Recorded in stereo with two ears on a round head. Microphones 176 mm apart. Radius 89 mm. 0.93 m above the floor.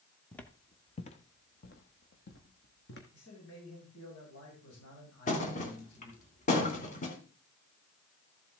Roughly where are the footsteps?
Centre.